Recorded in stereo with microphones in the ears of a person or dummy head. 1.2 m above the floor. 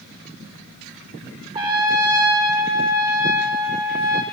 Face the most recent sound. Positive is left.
turn(degrees=-20)  # may be behind; listen again after turning